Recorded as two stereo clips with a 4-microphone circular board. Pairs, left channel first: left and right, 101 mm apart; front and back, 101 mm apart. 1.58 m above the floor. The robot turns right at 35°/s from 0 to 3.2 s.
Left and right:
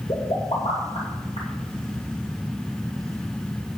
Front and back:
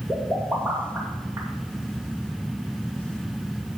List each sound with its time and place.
0.1 s a pop: 70° left, 2 m; by 1.5 s 115° left, 2 m